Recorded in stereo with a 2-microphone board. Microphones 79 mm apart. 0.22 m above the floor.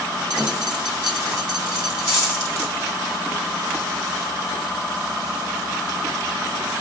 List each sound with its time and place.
0.3 s a dropped coin: 15° right (ahead or behind), 3.5 m